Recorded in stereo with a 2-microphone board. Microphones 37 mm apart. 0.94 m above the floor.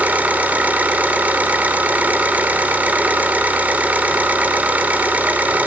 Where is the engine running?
45° right (ahead or behind), 2.5 m.